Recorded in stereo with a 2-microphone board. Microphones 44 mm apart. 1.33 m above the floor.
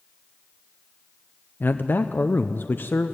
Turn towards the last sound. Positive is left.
turn(degrees=50)  # may be behind; listen again after turning